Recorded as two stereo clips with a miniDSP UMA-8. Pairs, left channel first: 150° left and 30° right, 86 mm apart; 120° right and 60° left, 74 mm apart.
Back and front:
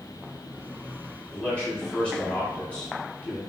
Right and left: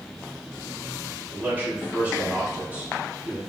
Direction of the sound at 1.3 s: 90° left.